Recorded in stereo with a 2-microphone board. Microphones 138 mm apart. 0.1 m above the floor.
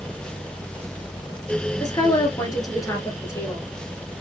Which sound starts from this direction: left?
A woman speaking, at 1.8 s.